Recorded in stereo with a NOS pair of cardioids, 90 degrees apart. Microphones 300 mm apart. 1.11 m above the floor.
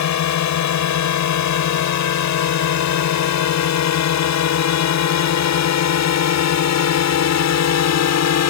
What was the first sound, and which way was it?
A drone, 65° left.